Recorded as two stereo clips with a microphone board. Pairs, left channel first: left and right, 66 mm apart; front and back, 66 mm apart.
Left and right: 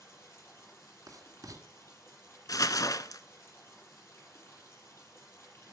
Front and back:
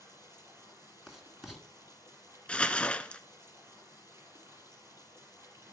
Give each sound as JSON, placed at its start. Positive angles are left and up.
{"t": 0.0, "sound": "running water", "azimuth_deg": 140, "distance_m": 6.5}
{"t": 1.1, "sound": "writing", "azimuth_deg": -95, "distance_m": 2.0}
{"t": 2.5, "sound": "crumpling", "azimuth_deg": 70, "distance_m": 0.7}